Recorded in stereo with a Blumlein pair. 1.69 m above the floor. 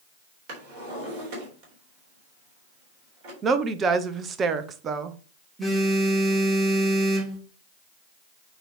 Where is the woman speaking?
25° right, 0.9 m.